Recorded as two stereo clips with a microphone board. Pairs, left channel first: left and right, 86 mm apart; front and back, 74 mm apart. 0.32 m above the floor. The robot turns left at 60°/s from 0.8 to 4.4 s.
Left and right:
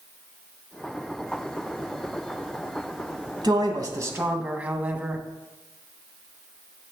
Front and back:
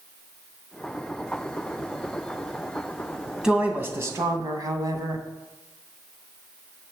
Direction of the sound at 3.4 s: 100° right.